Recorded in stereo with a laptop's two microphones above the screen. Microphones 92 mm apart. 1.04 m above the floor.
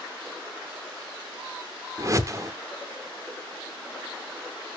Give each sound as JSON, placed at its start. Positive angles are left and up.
{"t": 2.0, "sound": "a whoosh", "side_deg": -35, "distance_m": 0.7}